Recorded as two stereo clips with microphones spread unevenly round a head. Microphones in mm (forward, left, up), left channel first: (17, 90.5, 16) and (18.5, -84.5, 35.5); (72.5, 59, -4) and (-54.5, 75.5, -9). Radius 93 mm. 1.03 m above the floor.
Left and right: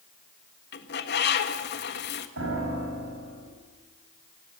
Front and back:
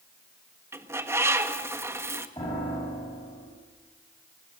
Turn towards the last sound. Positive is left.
turn(degrees=-80)